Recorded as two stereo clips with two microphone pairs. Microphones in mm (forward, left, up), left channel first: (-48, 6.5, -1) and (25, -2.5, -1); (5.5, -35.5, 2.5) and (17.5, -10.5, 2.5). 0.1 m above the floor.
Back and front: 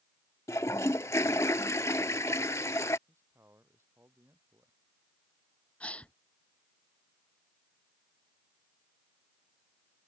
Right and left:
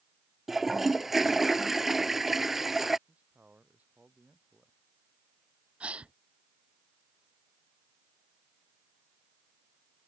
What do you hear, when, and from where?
0.5 s a toilet flushing: 145° left
3.1 s a man speaking: 45° left
5.8 s a gasp: 105° left